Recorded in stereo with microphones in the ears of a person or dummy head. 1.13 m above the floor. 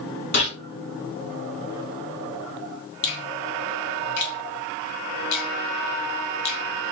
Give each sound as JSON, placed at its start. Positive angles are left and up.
{"t": 0.3, "sound": "a gunshot", "side_deg": 55, "distance_m": 2.0}
{"t": 3.0, "sound": "a finger snap", "side_deg": 60, "distance_m": 1.6}